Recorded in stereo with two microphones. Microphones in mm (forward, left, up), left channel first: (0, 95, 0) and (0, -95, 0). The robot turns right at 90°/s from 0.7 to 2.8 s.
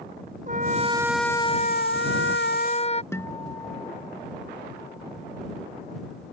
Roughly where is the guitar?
Centre.